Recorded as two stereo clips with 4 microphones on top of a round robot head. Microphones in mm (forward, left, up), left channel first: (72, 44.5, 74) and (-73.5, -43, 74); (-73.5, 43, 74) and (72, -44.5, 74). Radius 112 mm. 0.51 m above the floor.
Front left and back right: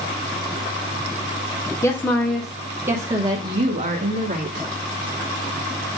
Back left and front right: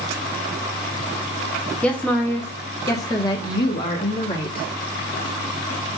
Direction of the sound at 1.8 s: 75° left.